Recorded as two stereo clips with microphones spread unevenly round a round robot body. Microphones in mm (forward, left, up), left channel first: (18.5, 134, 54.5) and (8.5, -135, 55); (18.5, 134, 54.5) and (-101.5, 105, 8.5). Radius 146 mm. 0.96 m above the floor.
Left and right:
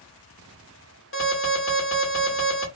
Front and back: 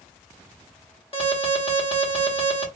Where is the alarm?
65° left, 2 m.